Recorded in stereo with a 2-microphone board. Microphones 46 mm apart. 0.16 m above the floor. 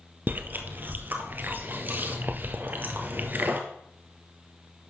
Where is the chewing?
40° right (ahead or behind), 1.2 m.